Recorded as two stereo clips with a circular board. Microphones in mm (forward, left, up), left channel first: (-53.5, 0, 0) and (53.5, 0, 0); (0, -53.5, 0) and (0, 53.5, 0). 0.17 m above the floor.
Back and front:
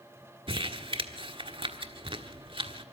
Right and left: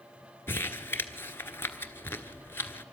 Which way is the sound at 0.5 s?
25° right.